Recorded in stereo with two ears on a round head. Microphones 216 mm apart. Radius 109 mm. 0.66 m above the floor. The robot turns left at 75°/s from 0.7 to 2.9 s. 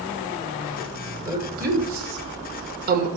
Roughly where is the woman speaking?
Centre.